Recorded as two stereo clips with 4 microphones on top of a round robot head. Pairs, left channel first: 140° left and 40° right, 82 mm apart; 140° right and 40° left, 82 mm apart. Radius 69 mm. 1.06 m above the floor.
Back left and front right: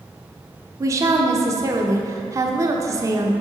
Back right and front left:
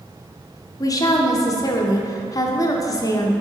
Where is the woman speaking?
90° right, 0.7 m.